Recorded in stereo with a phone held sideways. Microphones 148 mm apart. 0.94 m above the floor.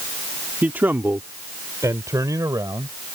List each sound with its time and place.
0.6 s a man speaking: 10° right (ahead or behind); by 3.0 s 25° right (ahead or behind)